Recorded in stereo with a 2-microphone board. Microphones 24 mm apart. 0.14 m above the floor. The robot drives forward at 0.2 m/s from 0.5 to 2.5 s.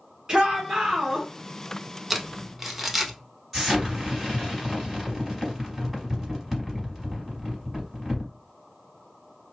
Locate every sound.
0.3 s a shout: 25° right (ahead or behind), 1.5 m
2.1 s crumpling: 10° right (ahead or behind), 0.6 m
3.5 s an explosion: 15° right (ahead or behind), 1.8 m